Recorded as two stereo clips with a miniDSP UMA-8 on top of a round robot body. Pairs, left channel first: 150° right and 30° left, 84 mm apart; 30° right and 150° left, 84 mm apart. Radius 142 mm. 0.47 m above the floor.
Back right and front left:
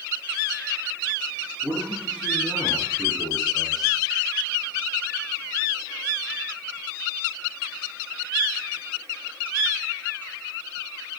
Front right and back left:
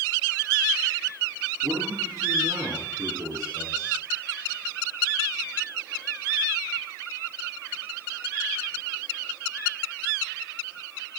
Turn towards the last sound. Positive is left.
turn(degrees=120)